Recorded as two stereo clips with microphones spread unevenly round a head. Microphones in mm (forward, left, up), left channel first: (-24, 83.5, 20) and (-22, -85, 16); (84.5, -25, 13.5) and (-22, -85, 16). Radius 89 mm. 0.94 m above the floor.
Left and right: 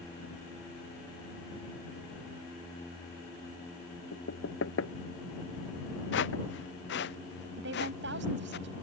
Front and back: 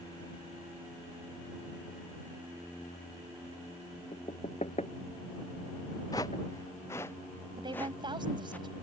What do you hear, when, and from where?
4.1 s knocking: 90° left
6.1 s footsteps: 100° left; by 8.6 s 110° left
7.6 s a woman speaking: 100° right